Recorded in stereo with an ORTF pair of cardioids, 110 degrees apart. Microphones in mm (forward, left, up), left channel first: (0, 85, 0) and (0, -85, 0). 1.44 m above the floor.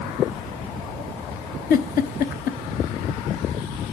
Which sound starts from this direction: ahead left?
A giggle, at 1.7 s.